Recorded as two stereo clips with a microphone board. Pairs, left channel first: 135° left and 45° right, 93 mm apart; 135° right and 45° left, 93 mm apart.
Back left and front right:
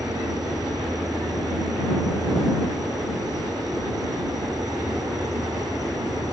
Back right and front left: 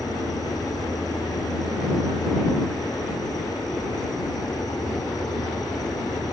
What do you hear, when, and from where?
0.0 s an insect: 90° right